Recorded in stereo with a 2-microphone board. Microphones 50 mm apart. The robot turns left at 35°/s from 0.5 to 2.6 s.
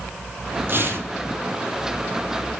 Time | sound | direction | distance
0.7 | tearing paper | 50° right (ahead or behind) | 4 m